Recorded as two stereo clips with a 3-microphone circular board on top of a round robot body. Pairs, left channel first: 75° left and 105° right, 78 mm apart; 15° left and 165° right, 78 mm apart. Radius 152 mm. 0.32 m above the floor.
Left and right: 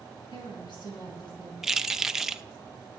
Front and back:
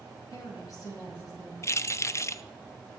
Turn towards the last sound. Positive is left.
turn(degrees=-20)